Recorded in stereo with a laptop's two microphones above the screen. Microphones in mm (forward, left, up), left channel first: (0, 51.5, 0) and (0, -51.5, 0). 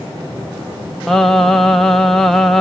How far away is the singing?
About 0.6 m.